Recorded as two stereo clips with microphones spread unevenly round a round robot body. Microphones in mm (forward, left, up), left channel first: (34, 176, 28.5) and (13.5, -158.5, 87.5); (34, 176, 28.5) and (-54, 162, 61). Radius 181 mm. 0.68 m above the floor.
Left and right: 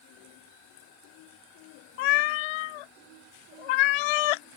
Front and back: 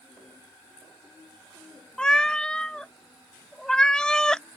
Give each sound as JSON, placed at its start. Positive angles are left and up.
{"t": 2.0, "sound": "a cat meowing", "azimuth_deg": 95}